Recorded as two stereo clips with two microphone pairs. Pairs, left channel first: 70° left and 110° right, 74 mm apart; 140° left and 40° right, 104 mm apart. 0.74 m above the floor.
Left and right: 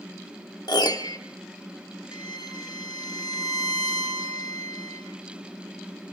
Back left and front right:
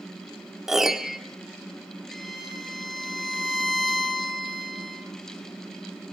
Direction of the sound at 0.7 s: 50° left.